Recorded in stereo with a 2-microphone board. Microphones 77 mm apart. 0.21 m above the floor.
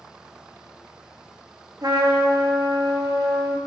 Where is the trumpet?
70° right (ahead or behind), 0.7 m.